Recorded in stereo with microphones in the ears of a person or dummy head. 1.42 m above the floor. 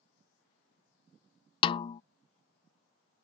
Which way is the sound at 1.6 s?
30° left (ahead or behind).